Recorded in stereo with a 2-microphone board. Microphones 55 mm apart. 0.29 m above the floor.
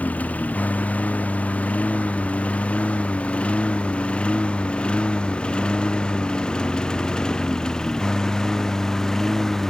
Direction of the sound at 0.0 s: 30° left (ahead or behind).